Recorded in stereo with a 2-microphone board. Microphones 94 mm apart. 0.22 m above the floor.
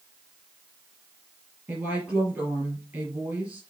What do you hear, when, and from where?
1.7 s a woman speaking: 15° right (ahead or behind), 4.5 m